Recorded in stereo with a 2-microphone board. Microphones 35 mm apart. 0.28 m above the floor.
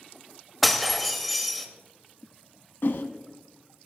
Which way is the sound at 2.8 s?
70° left (ahead or behind).